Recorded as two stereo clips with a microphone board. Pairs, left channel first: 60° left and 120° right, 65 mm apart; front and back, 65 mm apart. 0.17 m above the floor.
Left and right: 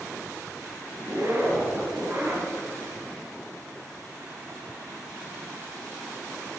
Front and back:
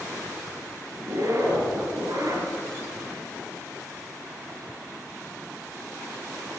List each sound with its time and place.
1.0 s a zipper: 165° right, 2 m